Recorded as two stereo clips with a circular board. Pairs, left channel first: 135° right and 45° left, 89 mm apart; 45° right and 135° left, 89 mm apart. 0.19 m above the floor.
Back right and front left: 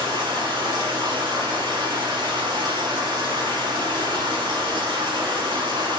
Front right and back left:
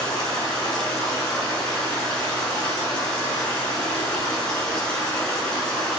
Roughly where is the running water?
Ahead left.